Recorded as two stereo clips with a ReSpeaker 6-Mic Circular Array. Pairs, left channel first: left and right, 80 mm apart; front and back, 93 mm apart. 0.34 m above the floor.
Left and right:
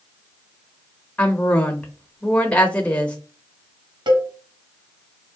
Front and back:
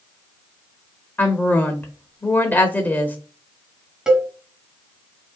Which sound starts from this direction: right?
A cowbell, at 4.1 s.